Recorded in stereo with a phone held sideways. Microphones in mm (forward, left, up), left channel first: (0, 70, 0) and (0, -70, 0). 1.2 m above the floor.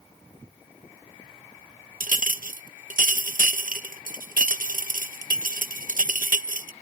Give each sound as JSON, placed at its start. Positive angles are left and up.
{"t": 2.0, "sound": "a clink", "side_deg": -75}